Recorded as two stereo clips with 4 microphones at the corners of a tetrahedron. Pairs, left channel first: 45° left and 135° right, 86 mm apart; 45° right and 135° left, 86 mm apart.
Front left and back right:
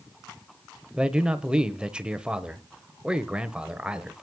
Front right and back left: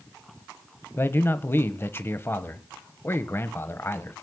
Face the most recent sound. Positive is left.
turn(degrees=-65)